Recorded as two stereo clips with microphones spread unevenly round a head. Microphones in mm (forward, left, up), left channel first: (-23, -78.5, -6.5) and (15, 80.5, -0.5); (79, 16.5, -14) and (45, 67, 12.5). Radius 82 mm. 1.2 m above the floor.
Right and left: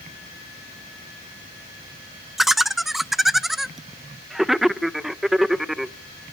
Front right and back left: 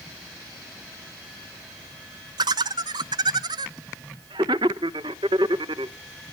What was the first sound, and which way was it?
Laughter, 165° left.